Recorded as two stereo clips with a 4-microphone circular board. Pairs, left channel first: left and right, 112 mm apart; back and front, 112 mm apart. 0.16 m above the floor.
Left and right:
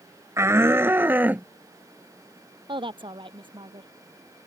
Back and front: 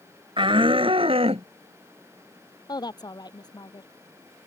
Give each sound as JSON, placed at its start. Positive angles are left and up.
{"t": 0.4, "sound": "a shout", "azimuth_deg": -30}
{"t": 2.7, "sound": "a woman speaking", "azimuth_deg": -130}